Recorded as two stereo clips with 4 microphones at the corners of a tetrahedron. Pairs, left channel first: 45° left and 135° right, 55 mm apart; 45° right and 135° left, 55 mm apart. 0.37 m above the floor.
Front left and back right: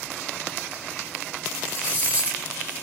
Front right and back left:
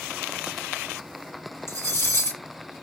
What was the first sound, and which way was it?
Cutlery clinking, 75° right.